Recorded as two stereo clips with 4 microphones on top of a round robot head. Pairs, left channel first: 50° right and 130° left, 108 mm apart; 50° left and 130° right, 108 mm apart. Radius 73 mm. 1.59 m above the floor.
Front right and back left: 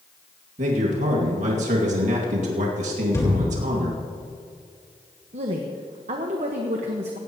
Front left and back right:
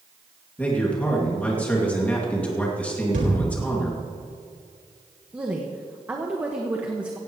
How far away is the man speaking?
About 2.5 m.